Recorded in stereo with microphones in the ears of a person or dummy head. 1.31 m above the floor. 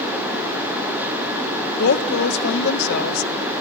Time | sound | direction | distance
1.8 | a woman speaking | 65° left (ahead or behind) | 1.6 m